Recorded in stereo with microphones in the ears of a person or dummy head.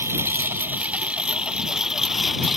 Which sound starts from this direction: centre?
A lawn mower, at 0.0 s.